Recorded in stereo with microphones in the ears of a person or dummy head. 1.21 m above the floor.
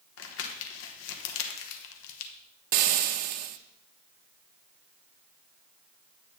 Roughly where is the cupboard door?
I don't hear a cupboard door.